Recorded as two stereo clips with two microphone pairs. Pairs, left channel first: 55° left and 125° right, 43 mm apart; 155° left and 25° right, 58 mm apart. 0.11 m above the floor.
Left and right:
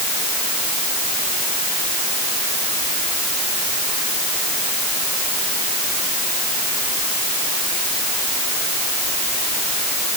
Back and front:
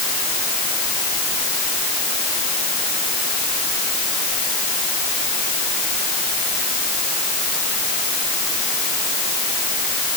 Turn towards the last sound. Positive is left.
No sound to turn to.